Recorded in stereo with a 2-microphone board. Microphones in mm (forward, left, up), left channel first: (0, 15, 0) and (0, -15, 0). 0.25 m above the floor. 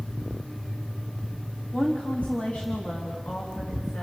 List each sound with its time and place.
1.7 s a woman speaking: 35° left (ahead or behind), 2 m; by 4.0 s 65° left (ahead or behind), 3.5 m